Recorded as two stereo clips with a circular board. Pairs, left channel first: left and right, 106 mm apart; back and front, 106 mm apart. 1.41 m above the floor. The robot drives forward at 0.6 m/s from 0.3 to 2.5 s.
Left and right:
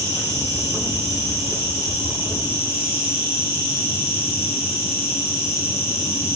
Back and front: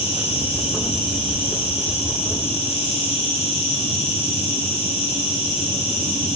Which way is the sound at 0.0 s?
150° right.